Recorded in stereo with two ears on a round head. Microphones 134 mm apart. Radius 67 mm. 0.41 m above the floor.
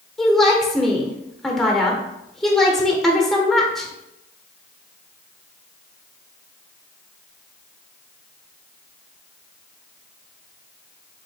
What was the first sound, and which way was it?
A woman speaking, centre (ahead or behind).